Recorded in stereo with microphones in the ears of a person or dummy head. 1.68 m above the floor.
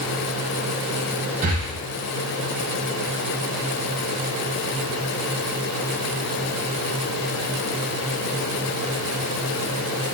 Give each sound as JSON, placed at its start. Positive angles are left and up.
{"t": 1.4, "sound": "breathing", "side_deg": -40, "distance_m": 0.6}